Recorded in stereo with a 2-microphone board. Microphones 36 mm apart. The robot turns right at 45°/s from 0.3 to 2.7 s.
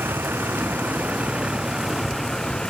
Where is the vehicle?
80° right; by 2.7 s 25° left (ahead or behind).